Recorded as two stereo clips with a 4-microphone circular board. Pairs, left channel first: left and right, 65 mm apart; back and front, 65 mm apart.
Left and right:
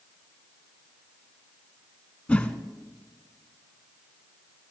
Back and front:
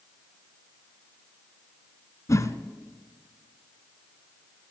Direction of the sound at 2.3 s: 160° left.